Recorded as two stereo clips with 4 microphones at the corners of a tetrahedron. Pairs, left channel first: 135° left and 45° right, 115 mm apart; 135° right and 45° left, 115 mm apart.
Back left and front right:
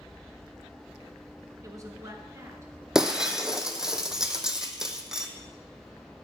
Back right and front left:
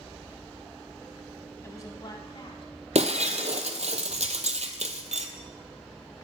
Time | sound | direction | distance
1.6 | a woman speaking | 85° right | 1.2 m
3.0 | breaking glass | 40° left | 0.8 m